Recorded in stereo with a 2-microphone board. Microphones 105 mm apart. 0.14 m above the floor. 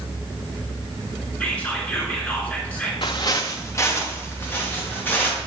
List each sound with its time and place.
1.4 s whispering: 15° left (ahead or behind), 1.6 m
3.0 s footsteps: 50° left (ahead or behind), 0.7 m; by 5.4 s 15° left (ahead or behind), 3 m